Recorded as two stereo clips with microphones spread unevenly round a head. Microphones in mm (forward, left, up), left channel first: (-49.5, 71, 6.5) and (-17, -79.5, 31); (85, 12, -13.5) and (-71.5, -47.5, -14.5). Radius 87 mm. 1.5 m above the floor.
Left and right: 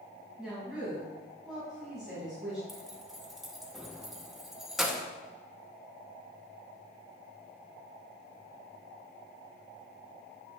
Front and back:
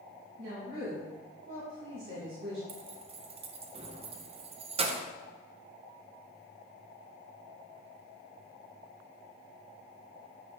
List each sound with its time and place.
0.4 s a woman speaking: 165° right, 2 m
2.7 s keys jangling: 150° right, 0.6 m